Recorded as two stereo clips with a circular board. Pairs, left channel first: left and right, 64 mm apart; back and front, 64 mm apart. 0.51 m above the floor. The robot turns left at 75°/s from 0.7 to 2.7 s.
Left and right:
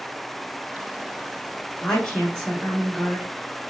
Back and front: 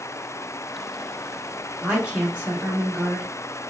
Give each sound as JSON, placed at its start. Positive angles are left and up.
{"t": 1.8, "sound": "a woman speaking", "azimuth_deg": 55, "distance_m": 0.9}